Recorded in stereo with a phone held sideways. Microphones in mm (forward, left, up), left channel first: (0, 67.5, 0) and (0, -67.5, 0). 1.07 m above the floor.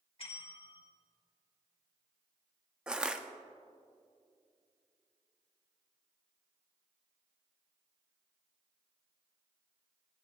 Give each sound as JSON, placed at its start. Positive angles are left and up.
{"t": 0.2, "sound": "a bell", "side_deg": 45, "distance_m": 1.4}
{"t": 2.9, "sound": "crushing", "side_deg": -5, "distance_m": 0.5}